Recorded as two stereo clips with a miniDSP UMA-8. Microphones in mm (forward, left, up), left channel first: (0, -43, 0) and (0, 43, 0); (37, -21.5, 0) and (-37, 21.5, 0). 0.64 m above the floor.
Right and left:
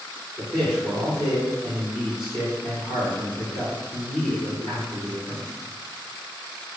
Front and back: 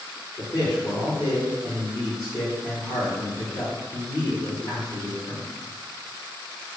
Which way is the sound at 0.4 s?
15° right.